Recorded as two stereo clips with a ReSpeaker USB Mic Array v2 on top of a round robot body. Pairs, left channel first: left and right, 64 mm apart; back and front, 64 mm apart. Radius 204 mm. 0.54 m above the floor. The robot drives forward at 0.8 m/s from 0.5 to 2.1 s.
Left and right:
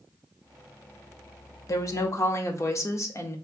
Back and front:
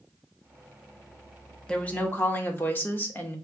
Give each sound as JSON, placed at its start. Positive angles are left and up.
{"t": 1.7, "sound": "a woman speaking", "azimuth_deg": 105, "distance_m": 1.1}